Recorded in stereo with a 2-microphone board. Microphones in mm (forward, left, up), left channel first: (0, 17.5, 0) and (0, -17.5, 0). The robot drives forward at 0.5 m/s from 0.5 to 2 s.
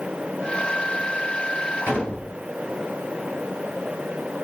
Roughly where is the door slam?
Right.